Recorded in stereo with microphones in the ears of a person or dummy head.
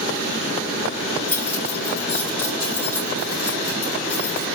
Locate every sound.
1.3 s keys jangling: 15° left (ahead or behind), 4.5 m